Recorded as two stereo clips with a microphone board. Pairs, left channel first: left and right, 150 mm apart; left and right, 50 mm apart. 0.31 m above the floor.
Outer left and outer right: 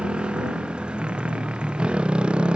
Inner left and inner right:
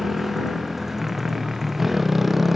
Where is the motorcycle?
5° right (ahead or behind).